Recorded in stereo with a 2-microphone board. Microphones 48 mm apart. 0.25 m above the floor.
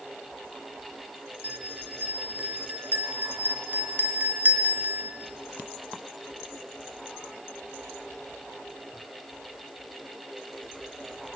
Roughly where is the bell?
Right.